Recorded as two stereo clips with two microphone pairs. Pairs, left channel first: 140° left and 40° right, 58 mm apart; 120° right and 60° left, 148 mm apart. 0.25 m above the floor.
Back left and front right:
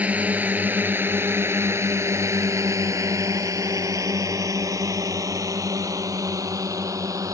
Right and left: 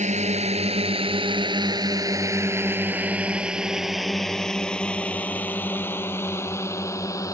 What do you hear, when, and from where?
0.0 s a drone: 25° left; by 7.3 s 55° right